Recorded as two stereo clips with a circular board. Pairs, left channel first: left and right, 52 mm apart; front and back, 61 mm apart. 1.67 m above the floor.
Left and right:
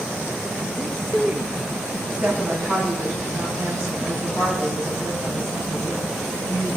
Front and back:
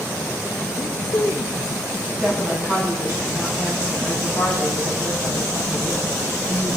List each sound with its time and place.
0.8 s a man speaking: 80° right, 5.5 m
2.1 s a woman speaking: 125° right, 4.5 m